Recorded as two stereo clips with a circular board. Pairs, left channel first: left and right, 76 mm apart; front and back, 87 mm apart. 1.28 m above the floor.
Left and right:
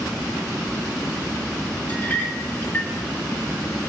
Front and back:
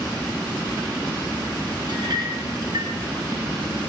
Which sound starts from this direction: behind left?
A clink, at 1.9 s.